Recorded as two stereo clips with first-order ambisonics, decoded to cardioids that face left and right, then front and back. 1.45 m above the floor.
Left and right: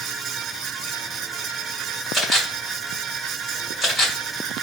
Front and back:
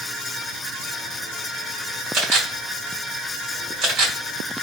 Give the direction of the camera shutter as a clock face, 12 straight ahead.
6 o'clock.